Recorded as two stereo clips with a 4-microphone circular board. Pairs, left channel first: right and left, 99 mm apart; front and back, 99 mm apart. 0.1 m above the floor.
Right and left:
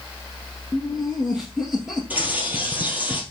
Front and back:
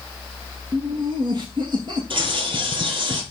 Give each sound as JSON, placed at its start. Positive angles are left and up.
{"t": 0.7, "sound": "laughter", "azimuth_deg": 175, "distance_m": 2.5}
{"t": 2.1, "sound": "a bird", "azimuth_deg": 160, "distance_m": 2.0}